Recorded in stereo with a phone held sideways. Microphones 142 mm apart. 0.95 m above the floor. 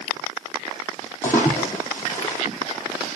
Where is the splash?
15° left (ahead or behind), 5 m.